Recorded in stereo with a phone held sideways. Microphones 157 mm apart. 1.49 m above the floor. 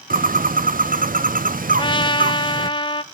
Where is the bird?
70° right (ahead or behind), 0.5 m.